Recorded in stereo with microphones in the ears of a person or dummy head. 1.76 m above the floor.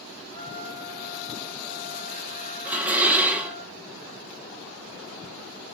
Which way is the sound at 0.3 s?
20° left (ahead or behind).